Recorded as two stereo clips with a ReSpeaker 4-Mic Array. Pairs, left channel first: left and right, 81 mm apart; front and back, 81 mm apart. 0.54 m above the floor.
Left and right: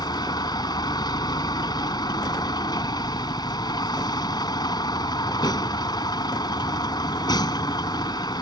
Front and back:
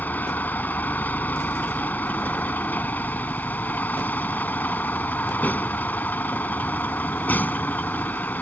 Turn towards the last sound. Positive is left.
turn(degrees=65)